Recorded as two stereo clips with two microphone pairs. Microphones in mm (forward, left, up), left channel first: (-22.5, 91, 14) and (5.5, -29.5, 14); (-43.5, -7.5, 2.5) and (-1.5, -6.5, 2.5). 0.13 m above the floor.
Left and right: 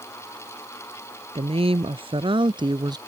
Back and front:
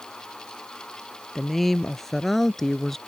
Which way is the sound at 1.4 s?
95° right.